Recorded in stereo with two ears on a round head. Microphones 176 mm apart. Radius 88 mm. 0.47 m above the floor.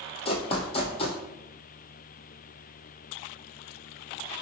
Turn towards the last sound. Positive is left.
turn(degrees=30)  # may be behind; listen again after turning